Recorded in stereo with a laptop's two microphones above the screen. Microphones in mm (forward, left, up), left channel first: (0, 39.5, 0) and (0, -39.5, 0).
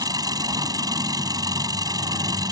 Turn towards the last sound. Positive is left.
turn(degrees=-55)  # may be behind; listen again after turning